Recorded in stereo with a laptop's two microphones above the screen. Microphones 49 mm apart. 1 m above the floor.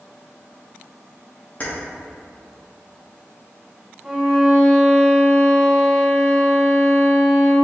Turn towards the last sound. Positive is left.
turn(degrees=-10)  # may be behind; listen again after turning